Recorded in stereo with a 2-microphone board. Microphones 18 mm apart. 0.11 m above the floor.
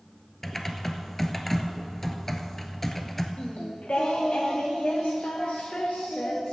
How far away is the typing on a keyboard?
About 1.0 m.